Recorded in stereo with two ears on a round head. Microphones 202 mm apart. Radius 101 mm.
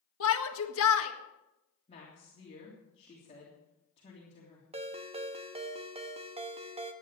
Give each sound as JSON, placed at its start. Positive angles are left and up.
{"t": 0.2, "sound": "a shout", "side_deg": 65, "distance_m": 1.7}
{"t": 1.9, "sound": "a woman speaking", "side_deg": 30, "distance_m": 3.5}
{"t": 4.7, "sound": "a ringtone", "side_deg": -25, "distance_m": 1.1}